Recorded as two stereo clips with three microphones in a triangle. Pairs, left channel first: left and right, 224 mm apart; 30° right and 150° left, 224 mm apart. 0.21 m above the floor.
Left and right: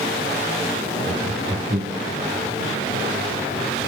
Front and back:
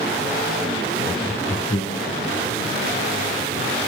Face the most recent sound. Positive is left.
turn(degrees=-30)